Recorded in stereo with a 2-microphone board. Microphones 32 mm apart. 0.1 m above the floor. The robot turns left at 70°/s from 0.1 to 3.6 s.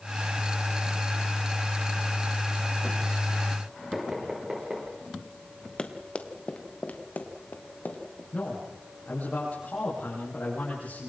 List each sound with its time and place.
3.9 s knocking: 15° right (ahead or behind), 8 m
5.8 s running footsteps: 30° left (ahead or behind), 2 m; by 8.2 s 60° left (ahead or behind), 4 m
8.3 s a man speaking: 55° left (ahead or behind), 10 m